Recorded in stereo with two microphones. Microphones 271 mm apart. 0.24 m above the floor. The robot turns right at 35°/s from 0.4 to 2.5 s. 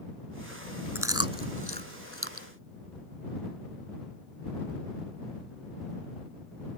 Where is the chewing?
10° right (ahead or behind); by 2.5 s 55° right (ahead or behind).